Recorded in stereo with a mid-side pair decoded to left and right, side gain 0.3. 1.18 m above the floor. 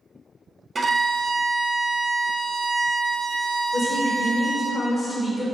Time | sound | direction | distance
0.8 | a violin | 50° right | 0.7 m
3.7 | a woman speaking | 45° left | 1.7 m